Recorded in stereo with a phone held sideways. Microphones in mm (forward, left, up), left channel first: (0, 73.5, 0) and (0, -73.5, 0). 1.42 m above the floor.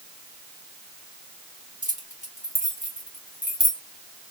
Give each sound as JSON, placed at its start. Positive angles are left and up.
{"t": 1.8, "sound": "keys jangling", "side_deg": 60, "distance_m": 2.5}